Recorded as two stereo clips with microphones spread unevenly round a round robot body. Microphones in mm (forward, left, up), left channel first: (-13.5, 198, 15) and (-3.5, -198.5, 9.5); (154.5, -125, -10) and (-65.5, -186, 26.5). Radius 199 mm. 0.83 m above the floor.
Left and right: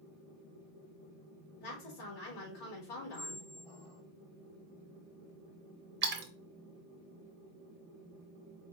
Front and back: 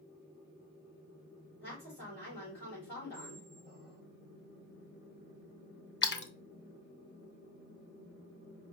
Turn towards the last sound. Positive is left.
turn(degrees=-25)